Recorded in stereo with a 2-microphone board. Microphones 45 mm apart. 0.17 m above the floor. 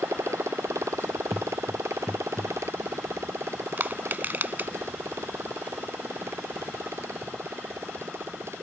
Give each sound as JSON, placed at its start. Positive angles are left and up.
{"t": 0.0, "sound": "a motorcycle", "side_deg": -85}
{"t": 1.3, "sound": "footsteps", "side_deg": 5}
{"t": 3.8, "sound": "crushing", "side_deg": -40}